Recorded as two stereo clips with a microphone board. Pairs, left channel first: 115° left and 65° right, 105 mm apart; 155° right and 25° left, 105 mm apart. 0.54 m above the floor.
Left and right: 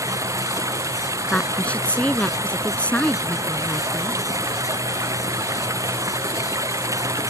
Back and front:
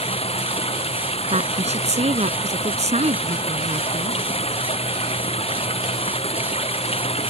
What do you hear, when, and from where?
0.0 s running water: 130° right
1.3 s a woman speaking: 35° left